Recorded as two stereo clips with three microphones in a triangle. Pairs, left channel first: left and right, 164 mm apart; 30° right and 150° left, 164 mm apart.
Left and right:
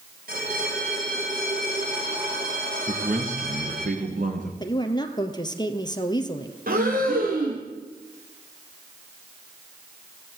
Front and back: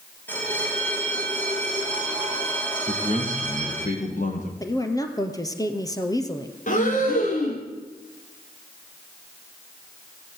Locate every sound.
0.3 s a bell: 110° right, 5 m
2.9 s a man speaking: 60° right, 7.5 m
4.6 s a woman speaking: 35° left, 3 m
6.7 s breathing: 65° right, 5.5 m